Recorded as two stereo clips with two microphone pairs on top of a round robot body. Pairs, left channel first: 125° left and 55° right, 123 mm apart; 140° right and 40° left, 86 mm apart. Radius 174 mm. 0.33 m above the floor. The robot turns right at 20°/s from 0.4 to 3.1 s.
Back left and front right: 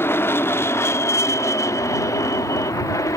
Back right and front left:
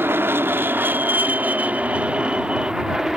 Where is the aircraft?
75° left; by 3.2 s 130° left.